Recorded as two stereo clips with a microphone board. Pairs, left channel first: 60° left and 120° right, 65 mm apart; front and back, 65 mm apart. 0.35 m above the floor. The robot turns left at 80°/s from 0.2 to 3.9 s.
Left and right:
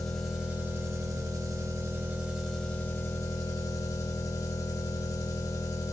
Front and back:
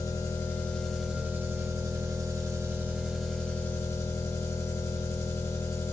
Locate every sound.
0.0 s an engine running: 25° right, 0.8 m; by 6.0 s 40° left, 0.8 m